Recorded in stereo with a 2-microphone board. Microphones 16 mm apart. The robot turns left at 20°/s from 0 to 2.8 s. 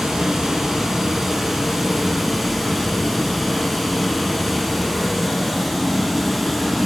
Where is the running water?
125° right, 2 m; by 6.9 s straight behind, 2 m.